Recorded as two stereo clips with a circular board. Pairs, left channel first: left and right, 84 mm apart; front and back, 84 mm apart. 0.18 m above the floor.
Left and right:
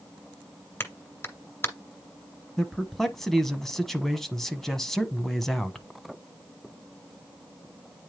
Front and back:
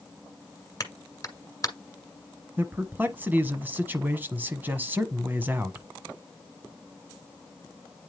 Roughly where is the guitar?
No guitar in this recording.